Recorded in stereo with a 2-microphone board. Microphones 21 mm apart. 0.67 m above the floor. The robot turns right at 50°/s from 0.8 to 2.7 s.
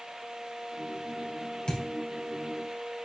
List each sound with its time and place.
1.7 s a thud: 45° left (ahead or behind), 2.5 m; by 1.9 s 50° left (ahead or behind), 2.5 m